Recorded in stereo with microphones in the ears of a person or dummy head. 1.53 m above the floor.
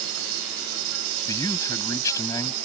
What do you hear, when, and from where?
0.0 s an insect: 75° right (ahead or behind)
1.3 s a man speaking: 15° left (ahead or behind)